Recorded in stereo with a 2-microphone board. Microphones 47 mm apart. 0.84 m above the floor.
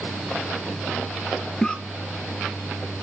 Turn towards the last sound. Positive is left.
turn(degrees=15)  # may be behind; listen again after turning